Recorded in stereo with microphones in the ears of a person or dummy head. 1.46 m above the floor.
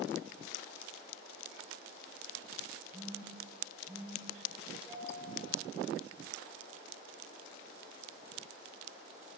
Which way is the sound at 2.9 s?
5° right (ahead or behind).